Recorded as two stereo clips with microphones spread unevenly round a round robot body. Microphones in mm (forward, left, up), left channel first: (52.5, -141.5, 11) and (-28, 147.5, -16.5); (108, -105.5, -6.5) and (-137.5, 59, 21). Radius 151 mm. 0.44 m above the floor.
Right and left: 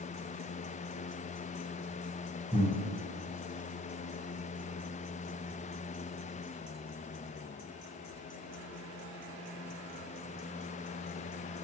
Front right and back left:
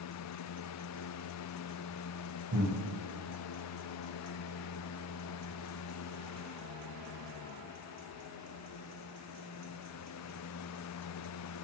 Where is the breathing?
150° right, 0.7 m.